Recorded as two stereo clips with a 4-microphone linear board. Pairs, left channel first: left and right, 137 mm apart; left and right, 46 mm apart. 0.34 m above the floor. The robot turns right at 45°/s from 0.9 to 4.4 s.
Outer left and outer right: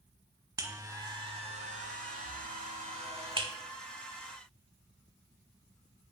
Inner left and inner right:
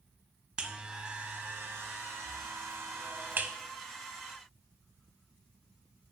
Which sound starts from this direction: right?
A buzzer, at 0.6 s.